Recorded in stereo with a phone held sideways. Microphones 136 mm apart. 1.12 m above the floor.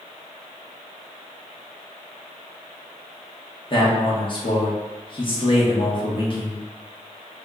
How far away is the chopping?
No chopping in this recording.